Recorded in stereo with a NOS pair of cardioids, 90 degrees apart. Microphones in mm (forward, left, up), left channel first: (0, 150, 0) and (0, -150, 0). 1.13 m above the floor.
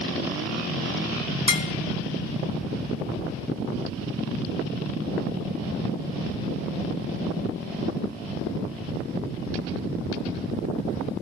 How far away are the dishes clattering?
About 0.8 m.